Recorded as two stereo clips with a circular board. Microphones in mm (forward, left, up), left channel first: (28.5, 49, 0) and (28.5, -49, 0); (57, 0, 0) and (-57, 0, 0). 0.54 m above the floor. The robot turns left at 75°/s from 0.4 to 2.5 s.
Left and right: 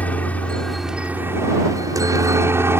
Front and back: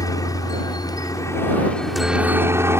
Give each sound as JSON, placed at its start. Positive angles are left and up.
{"t": 0.0, "sound": "a helicopter", "azimuth_deg": 25}